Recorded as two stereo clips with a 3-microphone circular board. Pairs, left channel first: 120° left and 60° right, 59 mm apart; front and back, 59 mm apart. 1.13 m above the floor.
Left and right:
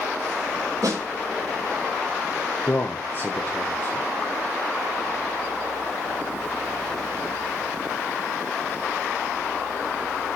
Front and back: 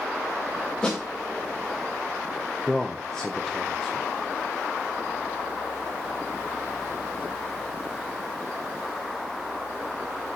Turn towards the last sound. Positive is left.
turn(degrees=80)